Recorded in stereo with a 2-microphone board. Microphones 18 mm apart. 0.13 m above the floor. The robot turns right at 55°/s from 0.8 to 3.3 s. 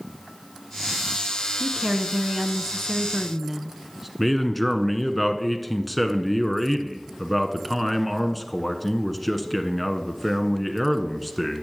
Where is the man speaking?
Centre (ahead or behind), 1.2 m.